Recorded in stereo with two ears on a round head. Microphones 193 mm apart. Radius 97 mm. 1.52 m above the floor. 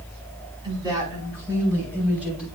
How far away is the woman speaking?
About 5 m.